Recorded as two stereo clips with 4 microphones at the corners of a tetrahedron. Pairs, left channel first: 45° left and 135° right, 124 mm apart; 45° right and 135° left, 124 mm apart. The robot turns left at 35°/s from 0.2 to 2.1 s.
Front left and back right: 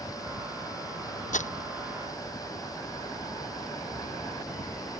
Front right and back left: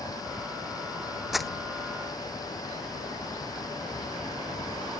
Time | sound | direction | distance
1.3 | crumpling | 50° left | ?